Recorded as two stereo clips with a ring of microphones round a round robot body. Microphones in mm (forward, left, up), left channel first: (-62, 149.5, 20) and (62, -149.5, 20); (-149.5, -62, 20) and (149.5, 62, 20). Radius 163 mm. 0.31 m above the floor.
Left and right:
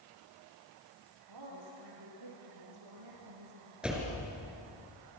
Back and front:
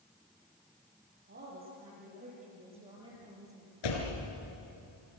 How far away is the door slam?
About 4.5 m.